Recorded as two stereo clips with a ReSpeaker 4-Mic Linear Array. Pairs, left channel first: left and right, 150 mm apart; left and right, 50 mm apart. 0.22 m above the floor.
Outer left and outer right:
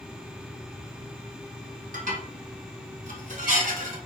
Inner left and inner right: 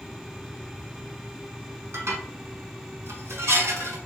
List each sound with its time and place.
1.9 s dishes clattering: 60° right (ahead or behind), 1.3 m